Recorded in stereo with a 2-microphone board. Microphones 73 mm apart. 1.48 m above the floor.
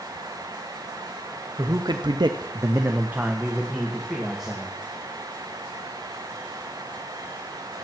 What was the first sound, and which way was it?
A man speaking, 55° right (ahead or behind).